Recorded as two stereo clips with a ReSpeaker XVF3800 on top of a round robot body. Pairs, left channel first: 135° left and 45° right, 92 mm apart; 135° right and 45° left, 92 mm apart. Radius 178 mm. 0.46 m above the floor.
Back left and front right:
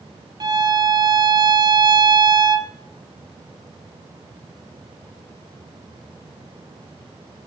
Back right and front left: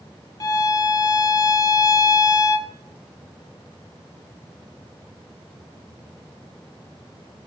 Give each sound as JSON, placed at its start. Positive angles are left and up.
{"t": 0.4, "sound": "a violin", "azimuth_deg": -85, "distance_m": 1.2}